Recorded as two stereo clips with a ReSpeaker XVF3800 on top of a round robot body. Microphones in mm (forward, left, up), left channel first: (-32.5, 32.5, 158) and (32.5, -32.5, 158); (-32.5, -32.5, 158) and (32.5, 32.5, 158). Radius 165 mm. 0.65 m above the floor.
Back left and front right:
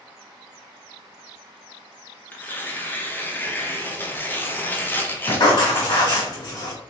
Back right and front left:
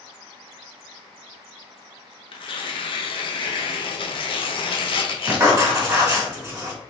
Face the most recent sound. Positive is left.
turn(degrees=100)